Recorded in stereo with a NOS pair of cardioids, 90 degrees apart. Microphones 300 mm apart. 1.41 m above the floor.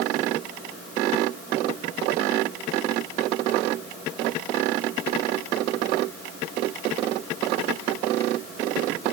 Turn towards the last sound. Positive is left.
No sound to turn to.